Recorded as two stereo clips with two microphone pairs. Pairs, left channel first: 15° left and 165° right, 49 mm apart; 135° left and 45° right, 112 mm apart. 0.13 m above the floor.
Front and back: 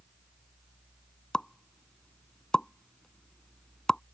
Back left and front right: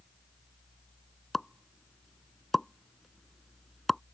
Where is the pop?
60° left.